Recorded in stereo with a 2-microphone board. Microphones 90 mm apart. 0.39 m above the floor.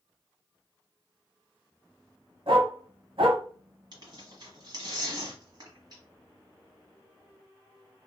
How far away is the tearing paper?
About 1.2 m.